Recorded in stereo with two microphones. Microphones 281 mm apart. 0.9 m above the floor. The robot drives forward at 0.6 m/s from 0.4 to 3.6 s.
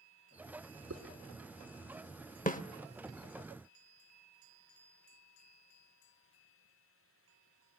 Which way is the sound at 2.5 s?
30° left (ahead or behind).